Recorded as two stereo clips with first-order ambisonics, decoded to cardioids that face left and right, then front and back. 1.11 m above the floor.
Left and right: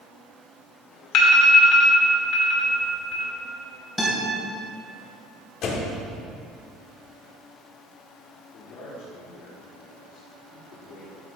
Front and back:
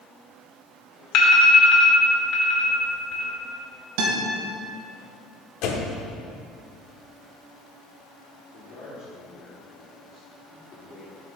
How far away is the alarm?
About 2 m.